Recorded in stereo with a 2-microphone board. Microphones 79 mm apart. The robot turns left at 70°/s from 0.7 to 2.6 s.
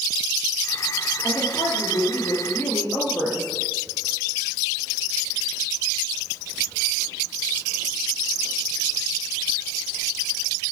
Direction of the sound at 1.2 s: 130° left.